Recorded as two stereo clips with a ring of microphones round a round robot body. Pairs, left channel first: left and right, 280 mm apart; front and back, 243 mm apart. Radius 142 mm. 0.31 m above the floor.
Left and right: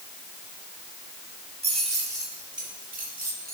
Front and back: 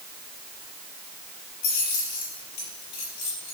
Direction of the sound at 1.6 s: 20° right.